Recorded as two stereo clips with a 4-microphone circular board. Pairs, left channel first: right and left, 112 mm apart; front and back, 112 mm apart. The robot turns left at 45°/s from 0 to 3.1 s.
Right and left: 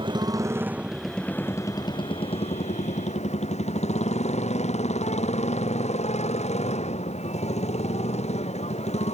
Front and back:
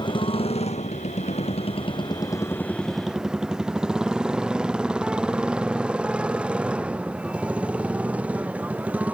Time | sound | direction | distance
0.0 | a motorcycle | 50° left | ?